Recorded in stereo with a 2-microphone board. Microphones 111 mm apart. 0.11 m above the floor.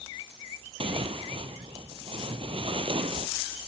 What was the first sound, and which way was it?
Tearing paper, 60° right (ahead or behind).